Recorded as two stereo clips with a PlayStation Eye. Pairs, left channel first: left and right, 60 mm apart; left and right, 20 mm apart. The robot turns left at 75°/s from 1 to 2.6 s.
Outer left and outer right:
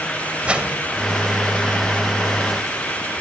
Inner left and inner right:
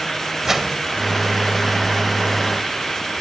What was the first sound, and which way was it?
A whoosh, 20° right (ahead or behind).